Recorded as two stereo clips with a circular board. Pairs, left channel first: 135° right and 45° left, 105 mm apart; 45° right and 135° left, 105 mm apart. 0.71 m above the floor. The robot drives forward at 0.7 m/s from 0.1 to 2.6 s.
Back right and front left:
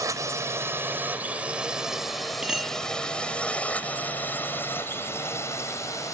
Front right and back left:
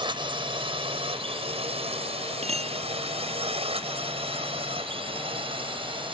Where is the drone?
100° left; by 6.1 s 165° left.